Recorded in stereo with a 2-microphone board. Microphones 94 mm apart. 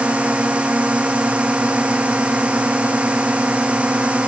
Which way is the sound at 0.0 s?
15° right (ahead or behind).